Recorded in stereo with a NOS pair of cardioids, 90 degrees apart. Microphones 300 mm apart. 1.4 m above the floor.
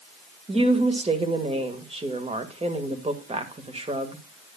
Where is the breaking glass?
I don't hear breaking glass.